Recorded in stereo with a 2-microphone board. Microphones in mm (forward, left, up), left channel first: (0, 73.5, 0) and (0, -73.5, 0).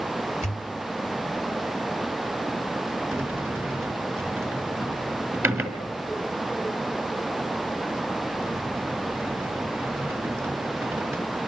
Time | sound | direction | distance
0.4 | a pop | 50° left (ahead or behind) | 3 m
3.1 | a sliding door | 15° right (ahead or behind) | 1.7 m